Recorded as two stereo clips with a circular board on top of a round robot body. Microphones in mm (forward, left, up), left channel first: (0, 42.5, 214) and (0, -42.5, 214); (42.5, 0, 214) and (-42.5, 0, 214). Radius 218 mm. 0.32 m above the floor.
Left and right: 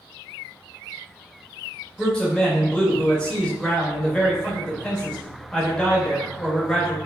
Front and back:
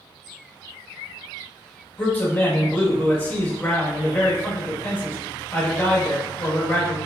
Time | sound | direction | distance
2.0 | a man speaking | 25° left | 1.4 m